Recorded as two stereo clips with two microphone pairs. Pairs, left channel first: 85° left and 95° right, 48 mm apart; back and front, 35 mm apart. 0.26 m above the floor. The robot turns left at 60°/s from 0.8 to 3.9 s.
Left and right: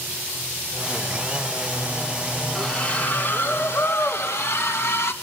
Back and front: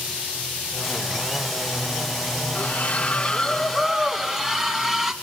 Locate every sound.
2.5 s a splash: 165° left, 1.7 m; by 5.1 s 85° left, 1.7 m